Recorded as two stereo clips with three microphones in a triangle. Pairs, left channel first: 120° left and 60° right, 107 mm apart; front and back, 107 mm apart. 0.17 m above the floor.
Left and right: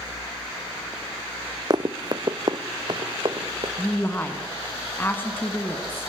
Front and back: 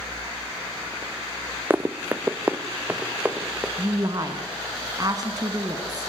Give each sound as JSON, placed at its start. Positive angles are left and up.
{"t": 1.7, "sound": "running footsteps", "azimuth_deg": -110, "distance_m": 0.6}
{"t": 3.8, "sound": "a woman speaking", "azimuth_deg": 175, "distance_m": 1.3}